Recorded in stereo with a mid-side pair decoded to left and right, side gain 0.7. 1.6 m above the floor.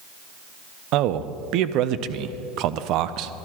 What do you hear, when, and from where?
0.9 s a man speaking: 60° right, 0.6 m